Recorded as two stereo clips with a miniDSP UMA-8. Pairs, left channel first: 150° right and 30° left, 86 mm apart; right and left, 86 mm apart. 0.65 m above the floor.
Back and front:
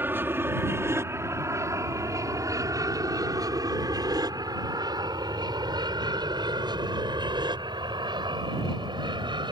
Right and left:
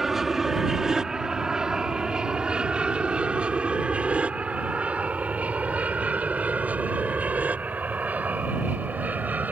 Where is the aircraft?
10° left; by 9.5 s 20° left.